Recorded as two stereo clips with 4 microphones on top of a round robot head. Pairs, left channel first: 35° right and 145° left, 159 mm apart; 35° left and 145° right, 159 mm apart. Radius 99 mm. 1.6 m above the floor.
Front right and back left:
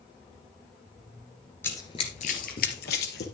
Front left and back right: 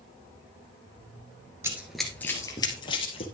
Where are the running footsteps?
95° right, 1.6 m; by 3.2 s 15° right, 2.5 m.